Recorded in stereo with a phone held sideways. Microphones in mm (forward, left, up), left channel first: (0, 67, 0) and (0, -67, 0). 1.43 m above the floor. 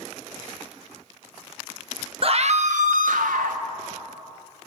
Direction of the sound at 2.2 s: 45° right (ahead or behind).